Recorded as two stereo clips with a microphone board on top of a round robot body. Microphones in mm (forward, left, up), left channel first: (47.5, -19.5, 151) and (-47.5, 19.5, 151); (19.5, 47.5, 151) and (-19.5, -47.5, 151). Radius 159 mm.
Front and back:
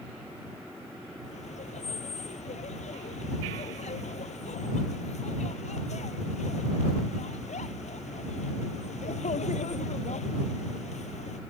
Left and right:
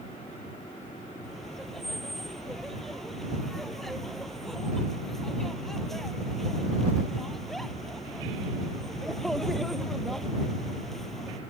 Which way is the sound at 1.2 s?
20° right.